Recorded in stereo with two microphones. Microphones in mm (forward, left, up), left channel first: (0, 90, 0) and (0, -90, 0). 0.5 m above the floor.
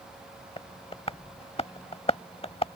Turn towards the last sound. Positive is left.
turn(degrees=35)  # may be behind; listen again after turning